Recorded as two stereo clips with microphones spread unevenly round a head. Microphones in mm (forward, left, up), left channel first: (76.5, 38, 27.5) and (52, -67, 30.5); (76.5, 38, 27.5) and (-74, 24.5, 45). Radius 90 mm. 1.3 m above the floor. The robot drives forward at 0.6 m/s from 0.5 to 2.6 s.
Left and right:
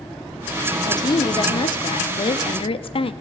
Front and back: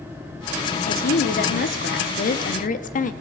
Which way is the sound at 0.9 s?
25° left.